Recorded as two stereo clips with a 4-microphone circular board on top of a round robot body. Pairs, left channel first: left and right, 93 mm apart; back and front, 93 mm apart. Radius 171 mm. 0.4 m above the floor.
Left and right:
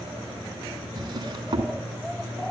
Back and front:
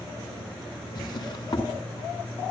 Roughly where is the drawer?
Behind right.